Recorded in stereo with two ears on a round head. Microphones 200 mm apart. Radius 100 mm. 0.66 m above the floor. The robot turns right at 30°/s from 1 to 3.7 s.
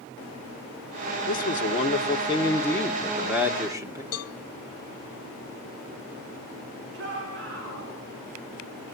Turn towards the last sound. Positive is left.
turn(degrees=-60)  # may be behind; listen again after turning